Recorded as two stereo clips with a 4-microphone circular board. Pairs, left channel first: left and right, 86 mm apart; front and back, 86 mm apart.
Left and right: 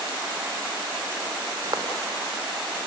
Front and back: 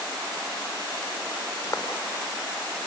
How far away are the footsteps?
About 4 m.